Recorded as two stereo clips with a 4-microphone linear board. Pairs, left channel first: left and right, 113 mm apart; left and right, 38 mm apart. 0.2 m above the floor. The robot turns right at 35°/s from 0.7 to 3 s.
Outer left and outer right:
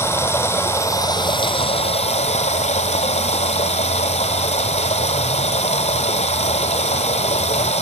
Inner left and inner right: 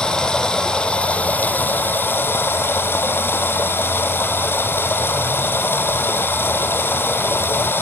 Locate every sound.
0.0 s running water: 20° left, 0.8 m; by 7.8 s 100° left, 0.8 m